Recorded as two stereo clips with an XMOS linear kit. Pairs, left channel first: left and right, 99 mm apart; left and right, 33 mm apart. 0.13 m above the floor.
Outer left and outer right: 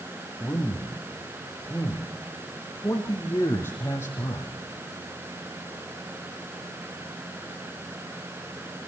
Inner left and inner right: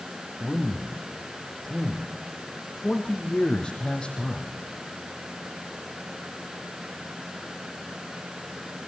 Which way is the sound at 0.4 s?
10° left (ahead or behind).